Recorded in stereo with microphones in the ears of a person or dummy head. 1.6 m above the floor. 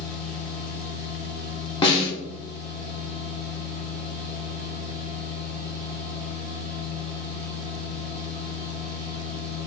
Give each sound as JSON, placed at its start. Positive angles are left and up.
{"t": 0.0, "sound": "a machine running", "side_deg": 5, "distance_m": 1.7}
{"t": 1.8, "sound": "a snare drum", "side_deg": 25, "distance_m": 0.8}